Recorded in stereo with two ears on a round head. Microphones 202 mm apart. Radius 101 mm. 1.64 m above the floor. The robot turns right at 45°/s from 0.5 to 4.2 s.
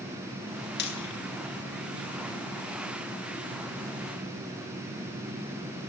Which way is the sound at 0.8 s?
50° left (ahead or behind).